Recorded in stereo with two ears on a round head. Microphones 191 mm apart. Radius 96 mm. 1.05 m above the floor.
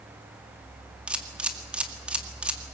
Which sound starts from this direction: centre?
A camera shutter, at 1.1 s.